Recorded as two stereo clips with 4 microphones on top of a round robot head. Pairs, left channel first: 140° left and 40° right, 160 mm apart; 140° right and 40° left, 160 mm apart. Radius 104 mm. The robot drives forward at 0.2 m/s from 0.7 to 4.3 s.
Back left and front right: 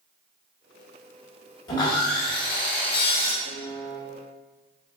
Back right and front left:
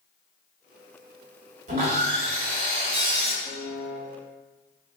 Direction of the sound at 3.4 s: 80° right.